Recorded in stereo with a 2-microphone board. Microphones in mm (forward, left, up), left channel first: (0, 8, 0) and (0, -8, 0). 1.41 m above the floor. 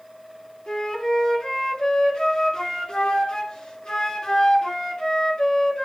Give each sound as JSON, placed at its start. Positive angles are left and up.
{"t": 0.7, "sound": "a flute", "side_deg": 75, "distance_m": 3.0}